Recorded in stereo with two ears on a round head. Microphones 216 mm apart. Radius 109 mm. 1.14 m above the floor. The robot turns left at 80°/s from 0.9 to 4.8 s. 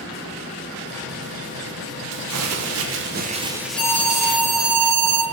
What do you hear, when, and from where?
2.1 s crumpling: 50° right, 0.8 m; by 4.4 s 120° left, 0.8 m
3.8 s an alarm: 25° left, 1.7 m; by 5.2 s 60° right, 1.7 m